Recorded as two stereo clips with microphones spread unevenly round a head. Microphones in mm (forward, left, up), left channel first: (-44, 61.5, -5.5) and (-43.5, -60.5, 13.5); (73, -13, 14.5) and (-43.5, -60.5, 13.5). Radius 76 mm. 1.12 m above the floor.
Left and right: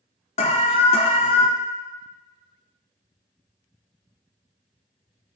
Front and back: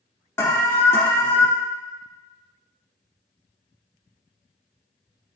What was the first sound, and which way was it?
An alarm, 95° left.